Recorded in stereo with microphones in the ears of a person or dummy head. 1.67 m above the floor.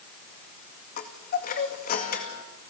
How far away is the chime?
About 2 m.